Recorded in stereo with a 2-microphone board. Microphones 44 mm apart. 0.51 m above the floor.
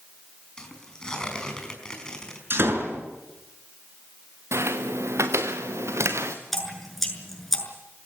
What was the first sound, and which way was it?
Tearing paper, 15° left (ahead or behind).